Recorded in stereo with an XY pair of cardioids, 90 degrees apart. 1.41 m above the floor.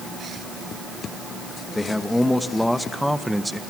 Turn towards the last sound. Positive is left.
turn(degrees=-5)